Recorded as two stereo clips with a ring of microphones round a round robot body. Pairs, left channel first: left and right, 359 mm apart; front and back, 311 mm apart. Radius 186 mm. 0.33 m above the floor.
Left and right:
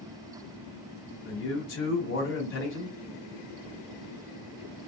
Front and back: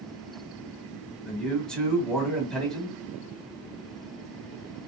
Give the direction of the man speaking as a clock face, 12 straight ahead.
9 o'clock.